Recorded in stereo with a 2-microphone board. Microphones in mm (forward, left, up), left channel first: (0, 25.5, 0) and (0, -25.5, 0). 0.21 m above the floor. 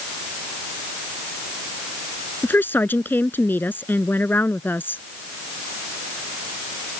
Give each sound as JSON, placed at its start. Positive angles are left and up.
{"t": 2.4, "sound": "a woman speaking", "side_deg": 45}